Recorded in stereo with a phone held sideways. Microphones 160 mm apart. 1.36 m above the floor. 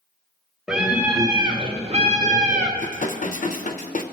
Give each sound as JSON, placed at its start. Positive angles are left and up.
{"t": 0.7, "sound": "a scream", "side_deg": -5, "distance_m": 0.9}
{"t": 2.8, "sound": "dishes clattering", "side_deg": 55, "distance_m": 0.7}